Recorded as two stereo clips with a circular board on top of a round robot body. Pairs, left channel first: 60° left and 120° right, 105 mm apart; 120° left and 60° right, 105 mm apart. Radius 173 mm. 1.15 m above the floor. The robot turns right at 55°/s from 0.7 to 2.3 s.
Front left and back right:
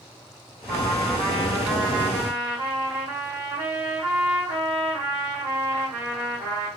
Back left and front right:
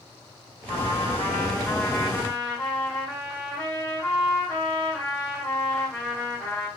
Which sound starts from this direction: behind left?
A trumpet, at 0.7 s.